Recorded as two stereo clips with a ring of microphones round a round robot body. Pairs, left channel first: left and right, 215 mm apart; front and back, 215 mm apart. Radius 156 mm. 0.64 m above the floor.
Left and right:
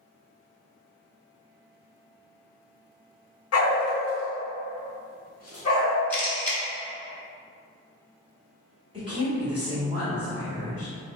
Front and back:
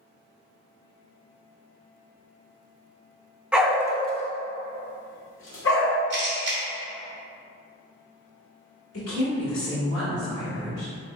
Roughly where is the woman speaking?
Ahead.